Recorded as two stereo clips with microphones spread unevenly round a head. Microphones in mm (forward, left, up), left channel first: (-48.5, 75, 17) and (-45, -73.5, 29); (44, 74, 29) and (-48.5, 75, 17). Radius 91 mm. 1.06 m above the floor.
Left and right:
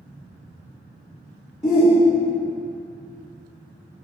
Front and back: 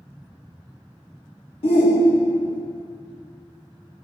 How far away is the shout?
About 1.5 m.